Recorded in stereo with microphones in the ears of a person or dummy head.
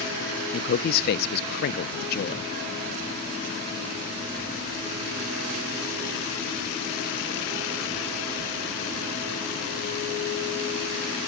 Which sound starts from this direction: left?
A man speaking, at 0.5 s.